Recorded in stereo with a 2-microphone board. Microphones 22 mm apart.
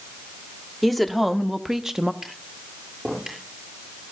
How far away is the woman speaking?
About 1.6 m.